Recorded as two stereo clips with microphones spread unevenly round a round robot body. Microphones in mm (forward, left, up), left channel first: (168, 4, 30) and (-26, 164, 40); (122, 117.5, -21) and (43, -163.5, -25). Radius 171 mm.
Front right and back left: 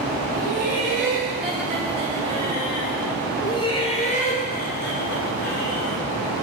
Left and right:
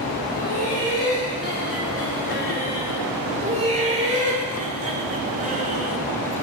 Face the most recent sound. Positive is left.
turn(degrees=-45)